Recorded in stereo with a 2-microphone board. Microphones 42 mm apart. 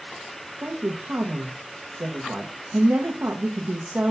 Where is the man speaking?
50° right (ahead or behind), 0.9 m.